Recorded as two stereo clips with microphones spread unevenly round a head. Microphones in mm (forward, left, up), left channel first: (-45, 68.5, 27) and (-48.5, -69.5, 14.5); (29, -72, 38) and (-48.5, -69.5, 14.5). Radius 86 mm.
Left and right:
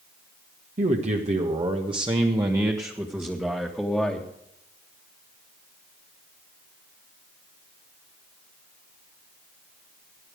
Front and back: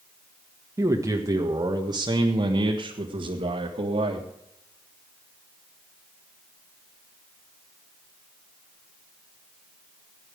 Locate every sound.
0.8 s a man speaking: 125° right, 1.7 m; by 4.3 s 175° left, 1.9 m